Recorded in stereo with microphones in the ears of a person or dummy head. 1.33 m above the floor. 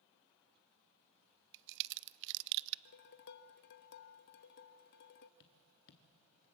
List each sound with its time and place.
1.5 s a crack: 65° right (ahead or behind), 0.5 m
2.9 s dishes clattering: 50° left (ahead or behind), 0.7 m
5.4 s tapping: 45° left (ahead or behind), 1.1 m